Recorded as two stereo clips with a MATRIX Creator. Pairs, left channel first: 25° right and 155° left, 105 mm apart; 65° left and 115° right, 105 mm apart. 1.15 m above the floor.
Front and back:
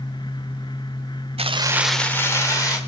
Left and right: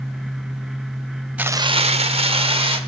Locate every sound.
1.4 s keys jangling: 170° left, 0.6 m; by 2.8 s 80° right, 1.8 m